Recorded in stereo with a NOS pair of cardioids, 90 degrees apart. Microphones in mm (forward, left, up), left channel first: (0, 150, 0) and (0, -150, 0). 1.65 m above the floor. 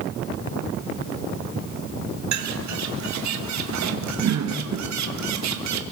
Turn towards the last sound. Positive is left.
turn(degrees=-65)